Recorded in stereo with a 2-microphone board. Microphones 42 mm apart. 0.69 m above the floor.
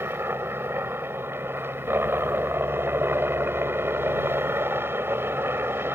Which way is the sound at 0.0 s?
65° right (ahead or behind).